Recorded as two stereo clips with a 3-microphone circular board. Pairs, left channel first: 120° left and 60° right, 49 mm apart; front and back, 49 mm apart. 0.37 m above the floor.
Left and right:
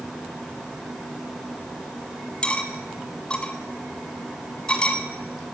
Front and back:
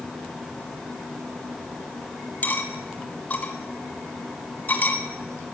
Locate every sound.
2.4 s cutlery clinking: 50° left, 1.6 m